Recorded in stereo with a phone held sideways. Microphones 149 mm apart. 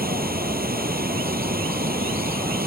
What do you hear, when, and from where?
0.0 s running water: 85° right